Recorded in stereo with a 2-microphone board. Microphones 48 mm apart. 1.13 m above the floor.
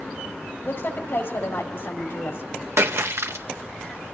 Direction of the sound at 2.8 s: 65° right (ahead or behind).